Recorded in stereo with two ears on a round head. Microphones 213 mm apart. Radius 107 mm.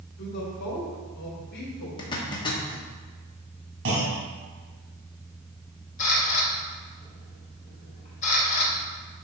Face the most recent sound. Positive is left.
turn(degrees=30)  # may be behind; listen again after turning